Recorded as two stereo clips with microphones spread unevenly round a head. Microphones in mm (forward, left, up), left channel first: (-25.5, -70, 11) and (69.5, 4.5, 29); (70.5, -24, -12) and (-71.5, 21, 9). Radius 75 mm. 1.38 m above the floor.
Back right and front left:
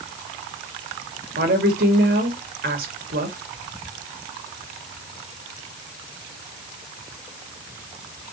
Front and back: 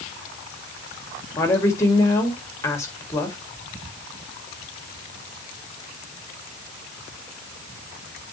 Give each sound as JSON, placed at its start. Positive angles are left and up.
{"t": 1.4, "sound": "a woman speaking", "azimuth_deg": 55, "distance_m": 2.0}